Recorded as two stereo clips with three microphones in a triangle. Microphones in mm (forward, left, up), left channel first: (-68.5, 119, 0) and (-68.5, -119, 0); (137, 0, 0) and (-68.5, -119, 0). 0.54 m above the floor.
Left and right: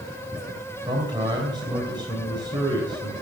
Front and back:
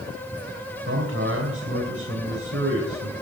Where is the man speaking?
160° right, 3 m.